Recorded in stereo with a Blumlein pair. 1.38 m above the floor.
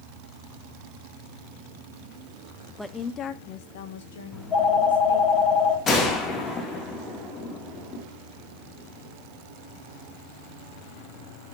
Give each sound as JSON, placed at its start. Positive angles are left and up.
{"t": 2.8, "sound": "a woman speaking", "azimuth_deg": 5, "distance_m": 0.7}
{"t": 4.3, "sound": "a phone ringing", "azimuth_deg": 25, "distance_m": 1.8}
{"t": 5.9, "sound": "a gunshot", "azimuth_deg": 25, "distance_m": 1.6}